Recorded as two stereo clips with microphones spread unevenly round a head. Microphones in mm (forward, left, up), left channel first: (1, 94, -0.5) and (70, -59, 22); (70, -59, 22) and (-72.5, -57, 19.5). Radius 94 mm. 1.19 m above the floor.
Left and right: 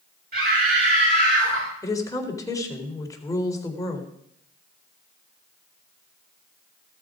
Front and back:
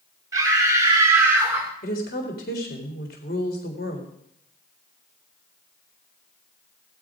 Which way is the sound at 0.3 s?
115° right.